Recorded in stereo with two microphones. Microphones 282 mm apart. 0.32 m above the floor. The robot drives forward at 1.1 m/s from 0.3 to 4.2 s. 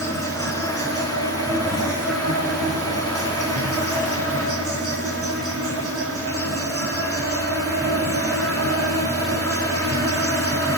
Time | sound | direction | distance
0.0 | an insect | 55° right (ahead or behind) | 5 m